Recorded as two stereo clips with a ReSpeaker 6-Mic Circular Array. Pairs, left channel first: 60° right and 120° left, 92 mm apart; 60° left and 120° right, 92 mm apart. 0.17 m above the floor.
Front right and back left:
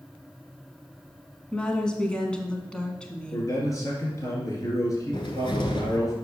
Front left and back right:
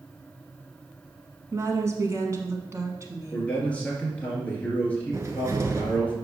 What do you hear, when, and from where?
1.5 s a woman speaking: 130° right, 1.2 m
3.3 s a man speaking: 15° right, 2.5 m
5.1 s a cupboard door: 65° right, 1.1 m